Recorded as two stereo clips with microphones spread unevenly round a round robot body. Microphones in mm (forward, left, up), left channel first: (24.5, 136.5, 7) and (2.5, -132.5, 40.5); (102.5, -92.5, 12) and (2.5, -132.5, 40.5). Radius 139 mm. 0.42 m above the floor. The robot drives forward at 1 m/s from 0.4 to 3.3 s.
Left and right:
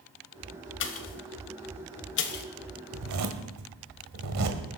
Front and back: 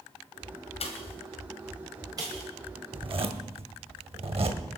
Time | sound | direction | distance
0.8 | a pop | 45° left | 1.2 m
2.9 | a zipper | 110° right | 1.5 m